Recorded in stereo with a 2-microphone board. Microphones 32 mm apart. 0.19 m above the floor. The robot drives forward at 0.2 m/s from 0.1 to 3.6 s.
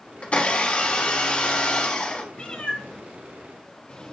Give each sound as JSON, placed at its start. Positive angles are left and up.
{"t": 0.2, "sound": "a blender", "side_deg": 40, "distance_m": 1.1}
{"t": 2.3, "sound": "a cat meowing", "side_deg": 45, "distance_m": 1.9}